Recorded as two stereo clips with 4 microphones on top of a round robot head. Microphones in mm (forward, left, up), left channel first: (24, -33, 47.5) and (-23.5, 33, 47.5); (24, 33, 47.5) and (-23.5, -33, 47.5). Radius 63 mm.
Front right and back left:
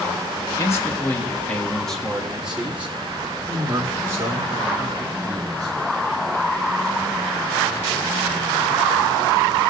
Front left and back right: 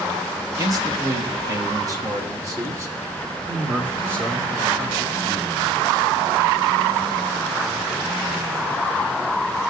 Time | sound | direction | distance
0.6 | a man speaking | 95° right | 1.5 m